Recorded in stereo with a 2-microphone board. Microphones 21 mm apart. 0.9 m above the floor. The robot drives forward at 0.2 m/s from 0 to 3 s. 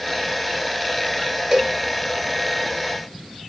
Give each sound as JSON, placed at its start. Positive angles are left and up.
{"t": 1.5, "sound": "a cowbell", "side_deg": -10, "distance_m": 0.7}